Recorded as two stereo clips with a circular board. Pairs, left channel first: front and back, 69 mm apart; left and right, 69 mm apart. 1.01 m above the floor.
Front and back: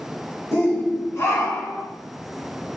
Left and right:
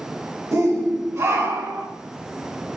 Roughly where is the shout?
Ahead right.